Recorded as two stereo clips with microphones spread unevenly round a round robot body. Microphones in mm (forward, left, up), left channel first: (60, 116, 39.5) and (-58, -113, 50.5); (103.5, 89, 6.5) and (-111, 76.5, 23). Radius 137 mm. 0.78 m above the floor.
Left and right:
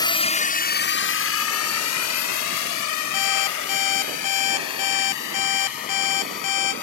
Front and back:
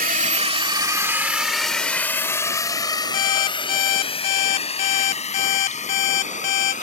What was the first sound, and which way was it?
A drone, 135° left.